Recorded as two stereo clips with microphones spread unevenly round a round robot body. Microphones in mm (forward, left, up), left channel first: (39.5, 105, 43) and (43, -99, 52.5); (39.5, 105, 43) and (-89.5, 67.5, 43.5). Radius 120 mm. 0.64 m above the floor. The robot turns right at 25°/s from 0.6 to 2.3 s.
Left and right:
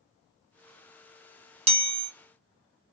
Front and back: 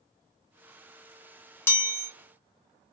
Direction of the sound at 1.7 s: 45° right.